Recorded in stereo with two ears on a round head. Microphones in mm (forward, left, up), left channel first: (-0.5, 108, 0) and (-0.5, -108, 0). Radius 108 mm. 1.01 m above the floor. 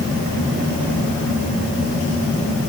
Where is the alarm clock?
I don't hear an alarm clock.